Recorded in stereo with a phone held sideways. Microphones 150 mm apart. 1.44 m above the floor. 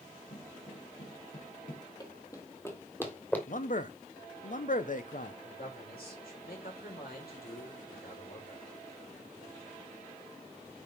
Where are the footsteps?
60° left (ahead or behind), 4 m; by 1.9 s 70° left (ahead or behind), 4 m.